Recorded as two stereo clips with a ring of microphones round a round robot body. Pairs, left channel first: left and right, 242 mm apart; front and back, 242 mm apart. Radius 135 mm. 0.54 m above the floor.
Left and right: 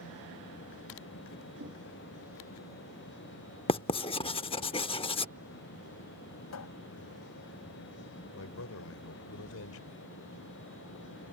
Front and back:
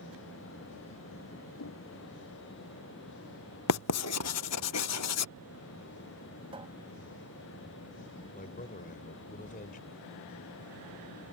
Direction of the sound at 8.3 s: 60° left.